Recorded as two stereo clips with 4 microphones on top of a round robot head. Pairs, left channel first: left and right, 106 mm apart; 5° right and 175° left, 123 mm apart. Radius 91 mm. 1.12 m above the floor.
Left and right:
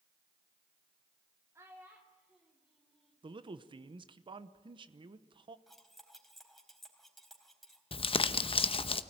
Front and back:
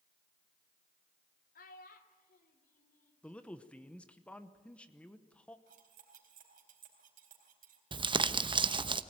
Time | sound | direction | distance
1.6 | a child speaking | 15° right | 1.9 m
3.2 | a man speaking | 85° right | 1.0 m
5.7 | cutlery clinking | straight behind | 4 m
7.9 | crumpling | 125° left | 0.9 m